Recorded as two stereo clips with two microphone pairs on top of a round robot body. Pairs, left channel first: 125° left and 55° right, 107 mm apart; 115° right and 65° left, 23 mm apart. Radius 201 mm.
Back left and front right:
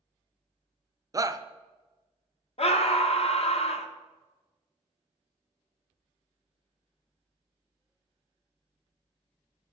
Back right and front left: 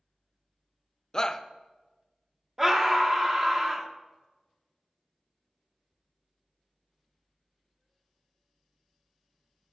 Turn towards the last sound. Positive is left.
turn(degrees=130)